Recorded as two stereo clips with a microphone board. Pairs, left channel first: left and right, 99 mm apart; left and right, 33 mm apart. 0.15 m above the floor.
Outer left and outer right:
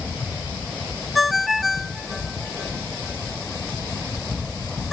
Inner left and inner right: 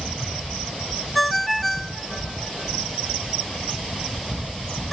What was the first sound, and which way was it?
A ringtone, centre (ahead or behind).